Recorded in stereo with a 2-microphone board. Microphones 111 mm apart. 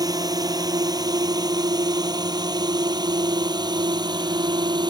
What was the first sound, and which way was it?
A drone, 35° right (ahead or behind).